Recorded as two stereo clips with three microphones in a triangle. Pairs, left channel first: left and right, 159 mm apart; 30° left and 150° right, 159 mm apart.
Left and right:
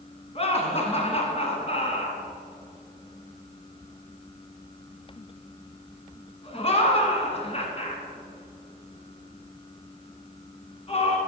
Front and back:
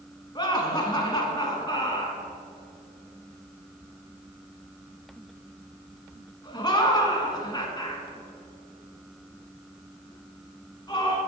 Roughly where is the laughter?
Left.